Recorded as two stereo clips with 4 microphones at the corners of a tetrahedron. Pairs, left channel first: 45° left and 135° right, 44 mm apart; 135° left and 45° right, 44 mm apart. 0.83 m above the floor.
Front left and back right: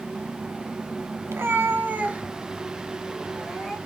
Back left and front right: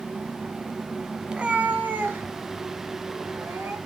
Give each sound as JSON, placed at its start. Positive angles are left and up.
{"t": 1.3, "sound": "a cat meowing", "azimuth_deg": -115, "distance_m": 0.8}